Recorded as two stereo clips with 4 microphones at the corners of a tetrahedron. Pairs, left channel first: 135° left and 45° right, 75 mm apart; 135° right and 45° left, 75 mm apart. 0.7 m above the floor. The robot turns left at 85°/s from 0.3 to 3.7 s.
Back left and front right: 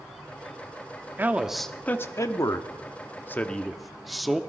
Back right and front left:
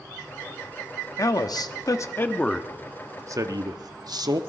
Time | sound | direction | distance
1.2 | a man speaking | 100° right | 1.0 m